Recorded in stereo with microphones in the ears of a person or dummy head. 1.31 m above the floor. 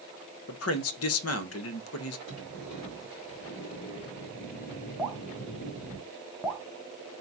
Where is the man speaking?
70° left (ahead or behind), 0.7 m.